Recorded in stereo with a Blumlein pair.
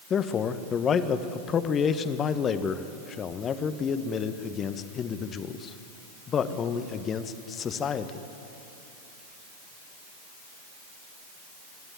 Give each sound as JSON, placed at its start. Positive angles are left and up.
{"t": 0.1, "sound": "a man speaking", "azimuth_deg": 25, "distance_m": 1.1}